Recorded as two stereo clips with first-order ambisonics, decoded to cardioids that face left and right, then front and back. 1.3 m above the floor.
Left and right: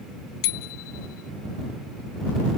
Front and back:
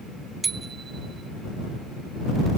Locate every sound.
0.4 s a bicycle bell: 105° left